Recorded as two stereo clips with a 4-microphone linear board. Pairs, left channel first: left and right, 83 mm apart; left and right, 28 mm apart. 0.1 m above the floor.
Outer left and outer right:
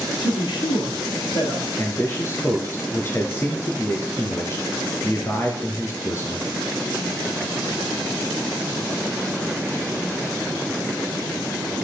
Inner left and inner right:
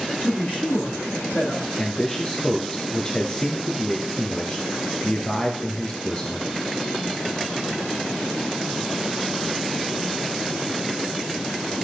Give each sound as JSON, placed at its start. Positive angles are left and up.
{"t": 0.2, "sound": "a man speaking", "side_deg": 75, "distance_m": 4.5}
{"t": 1.8, "sound": "a man speaking", "side_deg": 30, "distance_m": 1.5}